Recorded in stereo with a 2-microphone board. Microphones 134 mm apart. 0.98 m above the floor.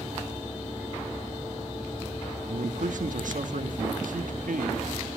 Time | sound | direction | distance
2.5 | a man speaking | 75° right (ahead or behind) | 1.4 m